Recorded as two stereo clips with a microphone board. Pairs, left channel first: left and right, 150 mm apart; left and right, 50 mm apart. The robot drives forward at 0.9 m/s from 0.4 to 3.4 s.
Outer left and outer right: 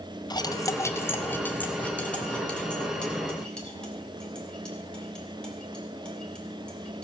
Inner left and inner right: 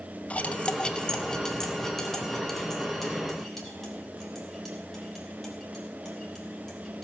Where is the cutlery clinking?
30° left (ahead or behind), 0.6 m; by 7.0 s 5° left (ahead or behind), 3 m.